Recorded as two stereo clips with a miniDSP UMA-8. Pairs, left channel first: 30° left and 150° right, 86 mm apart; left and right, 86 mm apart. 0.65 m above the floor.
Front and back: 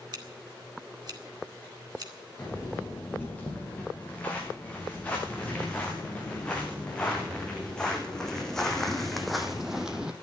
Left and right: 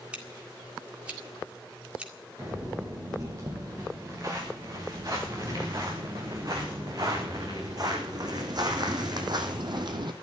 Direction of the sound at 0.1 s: 165° right.